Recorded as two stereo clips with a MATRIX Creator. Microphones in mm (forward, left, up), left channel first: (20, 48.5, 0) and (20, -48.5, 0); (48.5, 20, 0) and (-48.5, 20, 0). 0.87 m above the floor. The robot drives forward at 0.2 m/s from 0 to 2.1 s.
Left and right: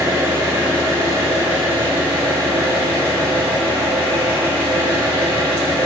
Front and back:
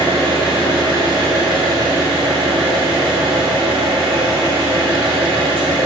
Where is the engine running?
145° right, 1.2 m; by 5.9 s 155° right, 1.5 m.